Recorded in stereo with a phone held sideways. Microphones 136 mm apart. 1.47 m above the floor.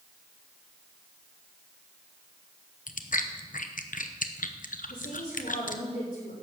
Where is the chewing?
75° left (ahead or behind), 0.8 m.